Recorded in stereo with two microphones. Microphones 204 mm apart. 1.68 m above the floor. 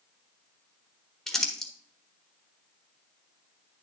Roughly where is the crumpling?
Centre.